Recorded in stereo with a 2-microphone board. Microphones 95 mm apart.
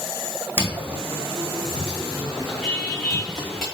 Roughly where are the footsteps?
Right.